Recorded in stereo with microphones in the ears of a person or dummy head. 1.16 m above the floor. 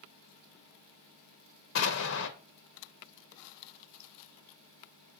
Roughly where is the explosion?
Left.